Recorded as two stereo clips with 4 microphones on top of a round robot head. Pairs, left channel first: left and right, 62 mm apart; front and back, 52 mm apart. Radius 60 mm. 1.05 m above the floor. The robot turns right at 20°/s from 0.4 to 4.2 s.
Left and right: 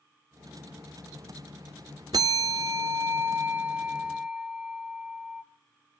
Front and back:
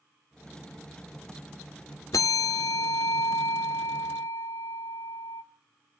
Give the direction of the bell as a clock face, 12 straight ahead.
2 o'clock.